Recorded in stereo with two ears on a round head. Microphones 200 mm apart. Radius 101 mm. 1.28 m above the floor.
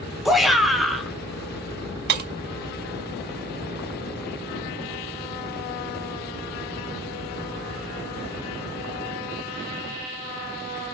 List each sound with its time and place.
0.2 s a shout: centre (ahead or behind), 1.5 m
2.1 s breaking glass: 50° right (ahead or behind), 1.1 m